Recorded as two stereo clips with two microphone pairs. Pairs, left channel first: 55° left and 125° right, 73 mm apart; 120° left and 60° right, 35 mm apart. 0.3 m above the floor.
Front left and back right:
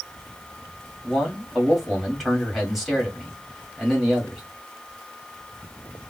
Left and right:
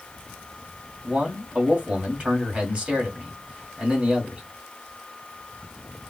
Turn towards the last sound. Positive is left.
turn(degrees=-40)